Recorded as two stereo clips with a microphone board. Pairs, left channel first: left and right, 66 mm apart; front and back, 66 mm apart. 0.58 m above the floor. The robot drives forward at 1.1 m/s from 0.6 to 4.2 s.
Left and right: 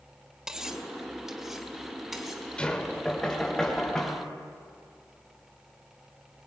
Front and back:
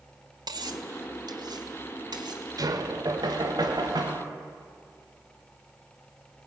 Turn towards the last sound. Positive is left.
turn(degrees=170)